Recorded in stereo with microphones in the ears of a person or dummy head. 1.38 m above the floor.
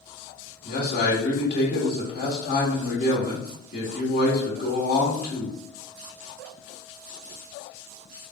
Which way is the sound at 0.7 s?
60° left (ahead or behind).